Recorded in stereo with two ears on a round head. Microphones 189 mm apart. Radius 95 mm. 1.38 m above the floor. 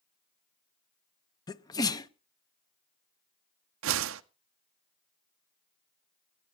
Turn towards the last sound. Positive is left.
turn(degrees=-65)  # may be behind; listen again after turning